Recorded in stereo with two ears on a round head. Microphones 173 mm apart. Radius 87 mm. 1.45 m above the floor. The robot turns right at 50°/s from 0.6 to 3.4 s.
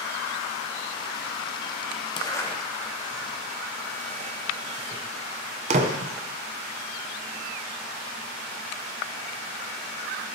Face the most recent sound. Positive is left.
turn(degrees=-35)  # may be behind; listen again after turning